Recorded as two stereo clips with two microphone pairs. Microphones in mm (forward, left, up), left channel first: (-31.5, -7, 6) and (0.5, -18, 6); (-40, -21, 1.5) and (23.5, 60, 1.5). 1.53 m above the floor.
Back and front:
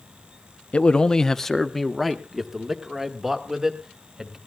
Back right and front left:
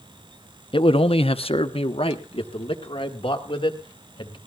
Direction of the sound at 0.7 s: 150° right.